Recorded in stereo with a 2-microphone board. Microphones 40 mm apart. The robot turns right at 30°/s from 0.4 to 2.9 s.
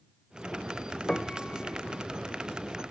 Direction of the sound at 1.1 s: 15° left (ahead or behind).